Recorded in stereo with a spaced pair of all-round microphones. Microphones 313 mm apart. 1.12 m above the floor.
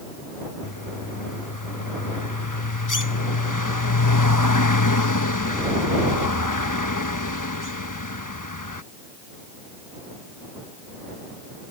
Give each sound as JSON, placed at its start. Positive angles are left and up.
{"t": 0.6, "sound": "a bird", "side_deg": 75}